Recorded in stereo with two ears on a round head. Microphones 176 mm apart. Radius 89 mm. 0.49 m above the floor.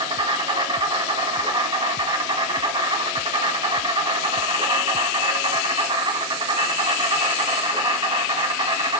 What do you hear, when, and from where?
0.0 s an insect: 25° right (ahead or behind), 1.4 m